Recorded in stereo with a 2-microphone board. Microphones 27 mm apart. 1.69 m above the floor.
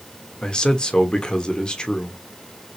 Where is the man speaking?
30° left (ahead or behind), 1.1 m.